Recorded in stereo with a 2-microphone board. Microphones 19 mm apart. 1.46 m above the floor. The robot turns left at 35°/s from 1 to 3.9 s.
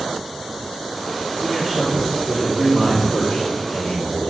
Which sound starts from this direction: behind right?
A man speaking, at 1.4 s.